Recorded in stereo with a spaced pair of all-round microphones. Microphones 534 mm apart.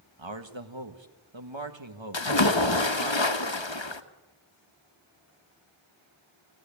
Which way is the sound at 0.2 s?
60° right (ahead or behind).